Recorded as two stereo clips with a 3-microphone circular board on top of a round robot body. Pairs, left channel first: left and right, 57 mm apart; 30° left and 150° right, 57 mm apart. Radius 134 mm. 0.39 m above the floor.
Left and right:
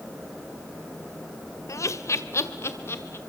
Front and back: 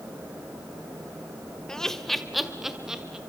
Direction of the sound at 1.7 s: 110° left.